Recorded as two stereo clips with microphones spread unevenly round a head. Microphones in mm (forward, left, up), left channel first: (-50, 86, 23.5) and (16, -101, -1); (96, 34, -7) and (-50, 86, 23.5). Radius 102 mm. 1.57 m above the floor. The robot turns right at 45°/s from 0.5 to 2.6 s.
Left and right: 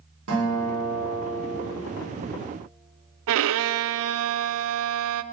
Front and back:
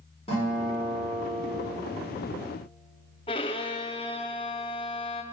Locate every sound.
0.3 s a guitar: 85° right, 5.5 m; by 1.6 s 35° right, 5.5 m
3.3 s a violin: 90° right, 0.5 m